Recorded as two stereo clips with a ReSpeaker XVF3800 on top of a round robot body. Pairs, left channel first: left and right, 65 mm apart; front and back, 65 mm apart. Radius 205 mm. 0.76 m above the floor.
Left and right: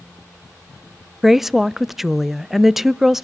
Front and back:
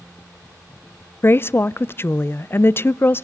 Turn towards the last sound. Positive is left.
turn(degrees=-10)